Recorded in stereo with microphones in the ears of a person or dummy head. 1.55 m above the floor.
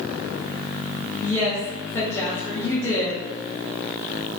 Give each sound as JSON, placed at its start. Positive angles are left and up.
{"t": 1.2, "sound": "a woman speaking", "side_deg": 10, "distance_m": 0.7}